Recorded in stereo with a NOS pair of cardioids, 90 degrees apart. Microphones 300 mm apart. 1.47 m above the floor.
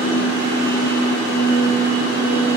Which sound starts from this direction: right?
A machine running, at 0.0 s.